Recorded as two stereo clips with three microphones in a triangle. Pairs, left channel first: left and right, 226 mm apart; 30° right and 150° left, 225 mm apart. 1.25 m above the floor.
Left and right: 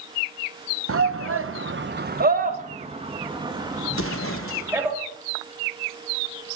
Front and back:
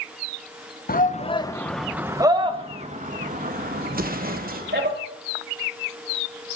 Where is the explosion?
105° left, 0.9 m.